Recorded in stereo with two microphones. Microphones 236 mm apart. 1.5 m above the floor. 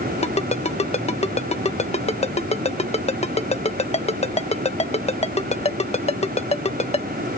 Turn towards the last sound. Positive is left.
turn(degrees=25)  # may be behind; listen again after turning